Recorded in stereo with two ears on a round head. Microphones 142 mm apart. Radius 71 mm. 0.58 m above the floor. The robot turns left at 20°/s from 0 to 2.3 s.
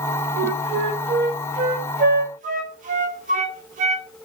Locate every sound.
0.4 s a flute: 75° right (ahead or behind), 0.6 m; by 4.1 s 50° right (ahead or behind), 0.6 m